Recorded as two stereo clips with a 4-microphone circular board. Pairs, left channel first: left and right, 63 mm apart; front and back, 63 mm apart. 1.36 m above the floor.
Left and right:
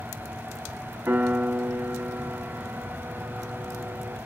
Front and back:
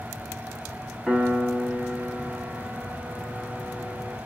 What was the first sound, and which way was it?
A piano, 90° right.